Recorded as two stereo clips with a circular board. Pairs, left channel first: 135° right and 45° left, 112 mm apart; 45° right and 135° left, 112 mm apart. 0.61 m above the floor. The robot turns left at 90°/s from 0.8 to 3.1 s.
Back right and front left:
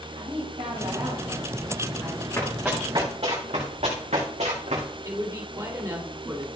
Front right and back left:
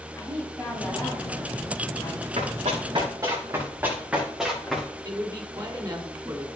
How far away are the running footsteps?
About 4.5 m.